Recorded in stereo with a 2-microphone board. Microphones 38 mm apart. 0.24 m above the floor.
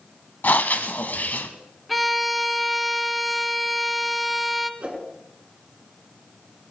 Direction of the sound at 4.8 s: 35° right (ahead or behind).